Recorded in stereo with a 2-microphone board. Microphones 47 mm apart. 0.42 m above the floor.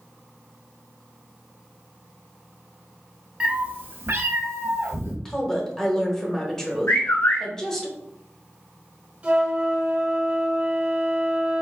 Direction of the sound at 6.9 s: 65° left (ahead or behind).